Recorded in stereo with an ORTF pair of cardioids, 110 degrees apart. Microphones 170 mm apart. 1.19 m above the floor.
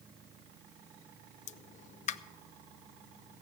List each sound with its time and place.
1.5 s a pop: 50° left, 0.5 m